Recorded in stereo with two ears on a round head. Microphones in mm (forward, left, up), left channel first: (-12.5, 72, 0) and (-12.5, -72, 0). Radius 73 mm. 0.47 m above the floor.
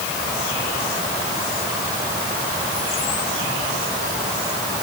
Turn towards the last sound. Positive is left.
No sound to turn to.